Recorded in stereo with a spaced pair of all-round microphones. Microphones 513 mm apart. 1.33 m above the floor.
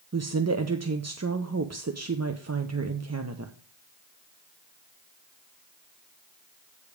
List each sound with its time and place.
0.1 s a woman speaking: 30° right (ahead or behind), 0.6 m